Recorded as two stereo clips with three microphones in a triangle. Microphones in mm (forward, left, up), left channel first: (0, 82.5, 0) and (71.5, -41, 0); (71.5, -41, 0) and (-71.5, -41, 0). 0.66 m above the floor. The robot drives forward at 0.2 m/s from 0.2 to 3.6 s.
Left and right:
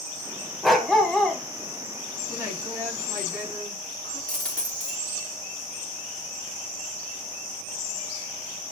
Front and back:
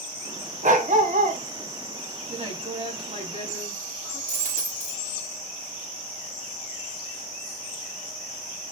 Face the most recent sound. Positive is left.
turn(degrees=-155)